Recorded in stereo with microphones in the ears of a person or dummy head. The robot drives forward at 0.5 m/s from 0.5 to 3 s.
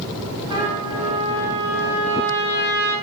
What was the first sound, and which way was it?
A trumpet, 20° right (ahead or behind).